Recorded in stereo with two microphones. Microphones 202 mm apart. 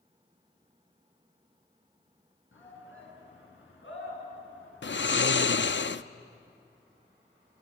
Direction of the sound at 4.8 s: 65° left (ahead or behind).